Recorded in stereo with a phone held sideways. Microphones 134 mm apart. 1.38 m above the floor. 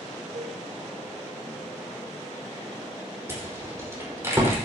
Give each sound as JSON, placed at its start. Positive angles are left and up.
{"t": 0.3, "sound": "a cowbell", "side_deg": -75, "distance_m": 3.0}
{"t": 3.3, "sound": "a rattle", "side_deg": -20, "distance_m": 5.0}